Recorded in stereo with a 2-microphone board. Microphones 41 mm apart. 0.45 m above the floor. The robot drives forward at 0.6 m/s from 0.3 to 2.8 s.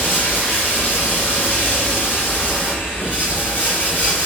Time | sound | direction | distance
0.0 | running water | 60° left (ahead or behind) | 2 m